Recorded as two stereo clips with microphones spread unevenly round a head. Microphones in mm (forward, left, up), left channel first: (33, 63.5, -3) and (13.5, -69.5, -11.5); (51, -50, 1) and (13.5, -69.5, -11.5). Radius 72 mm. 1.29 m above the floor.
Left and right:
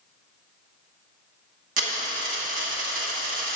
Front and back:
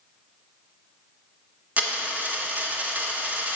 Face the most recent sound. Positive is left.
turn(degrees=-95)